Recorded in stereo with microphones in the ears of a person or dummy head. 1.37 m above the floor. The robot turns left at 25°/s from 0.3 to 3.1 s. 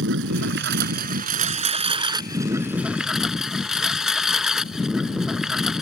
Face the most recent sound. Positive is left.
turn(degrees=180)